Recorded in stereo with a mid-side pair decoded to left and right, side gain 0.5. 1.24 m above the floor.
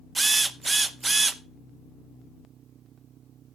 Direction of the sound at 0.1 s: 20° right.